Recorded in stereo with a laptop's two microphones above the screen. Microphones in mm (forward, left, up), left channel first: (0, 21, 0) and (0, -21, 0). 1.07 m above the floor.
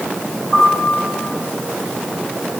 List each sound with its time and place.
0.5 s a piano: 25° left (ahead or behind), 6 m